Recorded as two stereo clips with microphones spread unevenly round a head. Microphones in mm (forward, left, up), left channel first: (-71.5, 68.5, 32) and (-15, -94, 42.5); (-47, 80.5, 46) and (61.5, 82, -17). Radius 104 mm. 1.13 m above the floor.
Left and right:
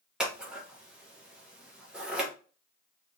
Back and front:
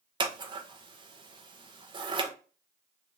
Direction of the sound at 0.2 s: 15° left.